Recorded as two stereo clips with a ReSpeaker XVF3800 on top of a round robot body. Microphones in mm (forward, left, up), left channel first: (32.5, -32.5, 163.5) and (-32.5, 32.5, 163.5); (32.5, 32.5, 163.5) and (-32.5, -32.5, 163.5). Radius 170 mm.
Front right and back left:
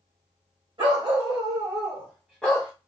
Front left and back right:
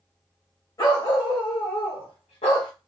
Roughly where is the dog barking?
Left.